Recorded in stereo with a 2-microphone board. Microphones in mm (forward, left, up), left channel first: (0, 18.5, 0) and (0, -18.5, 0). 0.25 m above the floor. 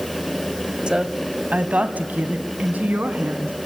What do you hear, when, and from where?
0.9 s a woman speaking: 25° right (ahead or behind), 1.2 m; by 3.5 s 55° right (ahead or behind), 3 m